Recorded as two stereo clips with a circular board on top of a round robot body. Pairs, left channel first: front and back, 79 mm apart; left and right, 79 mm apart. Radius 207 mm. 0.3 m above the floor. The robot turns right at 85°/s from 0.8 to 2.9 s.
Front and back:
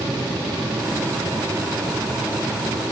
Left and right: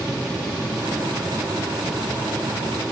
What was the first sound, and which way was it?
Only background noise.